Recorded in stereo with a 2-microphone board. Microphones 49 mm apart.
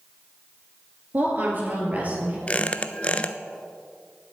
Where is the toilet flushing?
I don't hear a toilet flushing.